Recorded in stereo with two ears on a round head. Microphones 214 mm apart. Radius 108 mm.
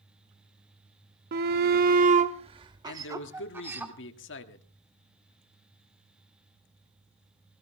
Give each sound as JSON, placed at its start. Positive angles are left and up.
{"t": 1.3, "sound": "a shout", "side_deg": -45, "distance_m": 0.6}
{"t": 2.9, "sound": "a man speaking", "side_deg": 55, "distance_m": 1.5}